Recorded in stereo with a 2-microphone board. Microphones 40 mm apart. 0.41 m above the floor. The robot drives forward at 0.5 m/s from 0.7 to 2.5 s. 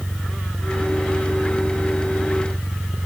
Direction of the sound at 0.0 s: 55° right (ahead or behind).